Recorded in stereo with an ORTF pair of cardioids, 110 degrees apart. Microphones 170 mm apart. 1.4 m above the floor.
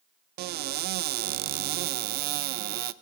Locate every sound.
0.4 s a cupboard door: 70° right, 0.6 m